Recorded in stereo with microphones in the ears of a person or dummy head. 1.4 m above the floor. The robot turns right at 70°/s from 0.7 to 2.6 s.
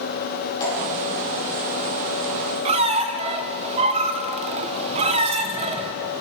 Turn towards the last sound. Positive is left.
turn(degrees=-35)  # may be behind; listen again after turning